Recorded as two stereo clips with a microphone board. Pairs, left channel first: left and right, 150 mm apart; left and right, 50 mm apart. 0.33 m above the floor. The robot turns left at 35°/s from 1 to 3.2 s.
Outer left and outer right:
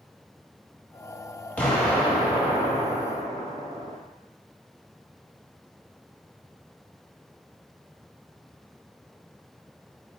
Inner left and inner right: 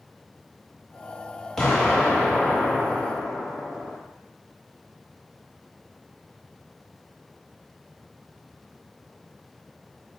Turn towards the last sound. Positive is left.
turn(degrees=-45)